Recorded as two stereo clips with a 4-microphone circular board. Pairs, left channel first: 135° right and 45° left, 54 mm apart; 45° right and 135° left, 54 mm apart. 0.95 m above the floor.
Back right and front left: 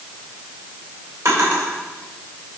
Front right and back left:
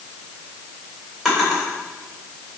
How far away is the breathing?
I don't hear breathing.